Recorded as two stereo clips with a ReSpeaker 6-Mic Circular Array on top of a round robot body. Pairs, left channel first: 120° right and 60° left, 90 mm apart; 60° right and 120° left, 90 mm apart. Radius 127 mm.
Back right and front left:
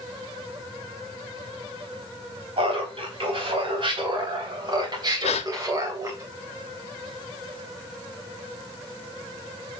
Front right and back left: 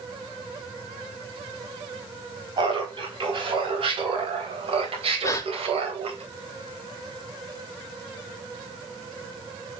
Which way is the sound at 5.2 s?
125° right.